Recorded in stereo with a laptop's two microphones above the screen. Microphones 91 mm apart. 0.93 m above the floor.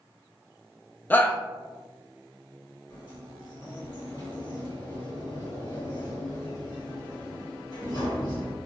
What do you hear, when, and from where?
1.1 s a shout: 20° left (ahead or behind), 0.6 m
2.9 s a sliding door: 60° left (ahead or behind), 2.0 m